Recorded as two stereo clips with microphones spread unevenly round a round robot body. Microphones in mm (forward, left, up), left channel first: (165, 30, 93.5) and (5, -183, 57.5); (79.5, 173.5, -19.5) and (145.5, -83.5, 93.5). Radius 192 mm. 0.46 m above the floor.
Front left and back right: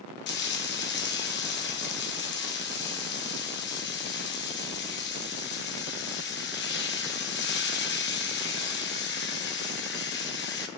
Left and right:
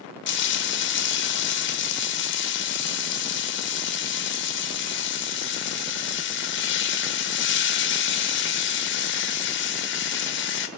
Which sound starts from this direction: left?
Frying, at 0.3 s.